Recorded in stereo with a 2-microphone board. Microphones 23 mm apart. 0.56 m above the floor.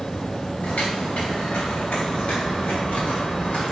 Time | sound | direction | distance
0.6 | footsteps | 80° left | 3 m